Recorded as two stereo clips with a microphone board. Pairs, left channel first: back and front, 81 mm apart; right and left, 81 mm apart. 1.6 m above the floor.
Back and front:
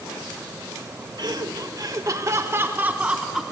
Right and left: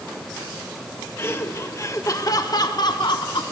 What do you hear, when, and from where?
1.2 s laughter: 30° right, 1.8 m; by 3.4 s 85° right, 1.1 m